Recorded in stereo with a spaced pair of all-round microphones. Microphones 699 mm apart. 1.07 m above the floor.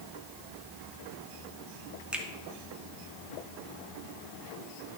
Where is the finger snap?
Centre (ahead or behind), 0.9 m.